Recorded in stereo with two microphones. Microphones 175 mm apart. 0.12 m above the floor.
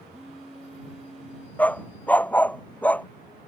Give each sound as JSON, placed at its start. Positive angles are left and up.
{"t": 0.1, "sound": "a phone buzzing", "side_deg": 0}
{"t": 1.6, "sound": "a dog barking", "side_deg": 10}